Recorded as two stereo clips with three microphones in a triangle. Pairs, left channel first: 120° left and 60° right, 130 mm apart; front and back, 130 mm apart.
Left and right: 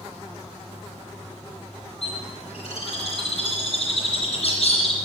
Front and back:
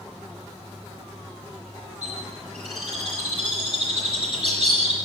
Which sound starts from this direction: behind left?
A bird, at 2.0 s.